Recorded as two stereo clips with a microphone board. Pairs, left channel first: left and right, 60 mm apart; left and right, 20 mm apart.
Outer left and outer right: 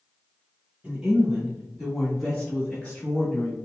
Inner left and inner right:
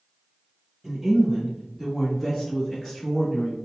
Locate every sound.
0.8 s a woman speaking: 15° right (ahead or behind), 1.4 m; by 3.6 s 30° left (ahead or behind), 1.4 m